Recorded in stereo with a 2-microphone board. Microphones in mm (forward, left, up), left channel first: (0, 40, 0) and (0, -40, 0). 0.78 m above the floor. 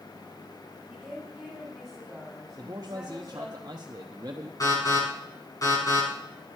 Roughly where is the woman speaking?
Centre.